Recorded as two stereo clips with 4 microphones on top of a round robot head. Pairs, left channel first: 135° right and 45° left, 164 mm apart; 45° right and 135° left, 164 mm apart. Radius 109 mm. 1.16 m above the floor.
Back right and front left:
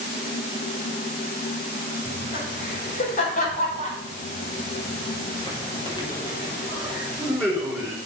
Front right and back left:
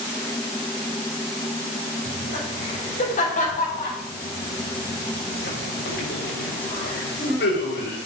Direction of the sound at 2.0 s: 100° right.